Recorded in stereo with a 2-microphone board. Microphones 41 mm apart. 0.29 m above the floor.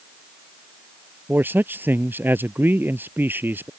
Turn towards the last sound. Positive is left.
turn(degrees=-60)  # may be behind; listen again after turning